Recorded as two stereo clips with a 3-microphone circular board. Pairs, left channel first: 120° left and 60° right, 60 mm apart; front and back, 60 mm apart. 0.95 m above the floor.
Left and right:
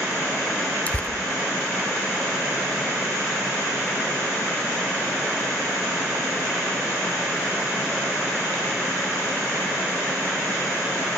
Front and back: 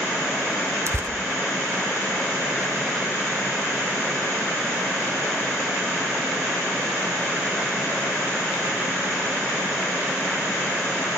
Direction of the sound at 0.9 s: 175° left.